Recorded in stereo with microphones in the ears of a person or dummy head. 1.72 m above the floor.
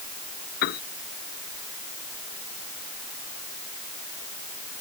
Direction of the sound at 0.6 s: 50° left (ahead or behind).